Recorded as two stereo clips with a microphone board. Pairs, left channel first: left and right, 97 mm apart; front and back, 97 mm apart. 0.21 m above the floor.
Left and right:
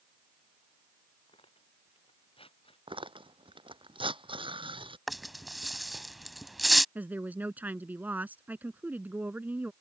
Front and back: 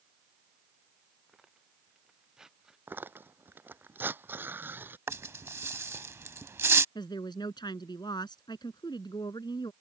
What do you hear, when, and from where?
1.3 s tearing paper: 95° left
2.9 s tearing paper: 110° right
5.1 s a rattle: straight behind
7.0 s a woman speaking: 20° right